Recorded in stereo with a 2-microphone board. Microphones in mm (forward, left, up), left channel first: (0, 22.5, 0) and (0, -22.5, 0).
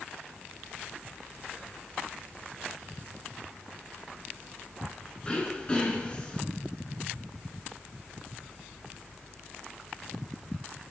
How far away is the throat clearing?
About 1.3 m.